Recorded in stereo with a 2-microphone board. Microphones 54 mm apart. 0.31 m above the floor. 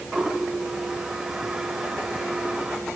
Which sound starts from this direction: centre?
A toilet flushing, at 0.1 s.